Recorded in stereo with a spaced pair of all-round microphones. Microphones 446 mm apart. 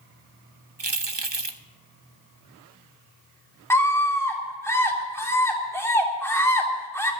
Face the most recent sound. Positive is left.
turn(degrees=5)  # may be behind; listen again after turning